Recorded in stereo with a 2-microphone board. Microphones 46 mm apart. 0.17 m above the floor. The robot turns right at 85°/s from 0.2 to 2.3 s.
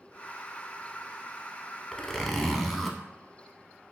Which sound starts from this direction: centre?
A zipper, at 1.9 s.